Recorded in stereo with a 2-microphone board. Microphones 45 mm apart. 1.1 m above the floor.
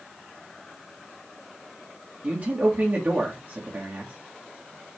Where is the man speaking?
40° right (ahead or behind), 2.5 m.